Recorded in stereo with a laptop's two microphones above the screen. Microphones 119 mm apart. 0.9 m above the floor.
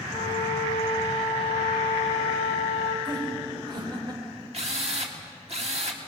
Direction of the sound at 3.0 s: 40° right (ahead or behind).